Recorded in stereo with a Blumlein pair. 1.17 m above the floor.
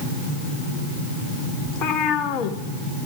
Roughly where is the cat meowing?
Ahead left.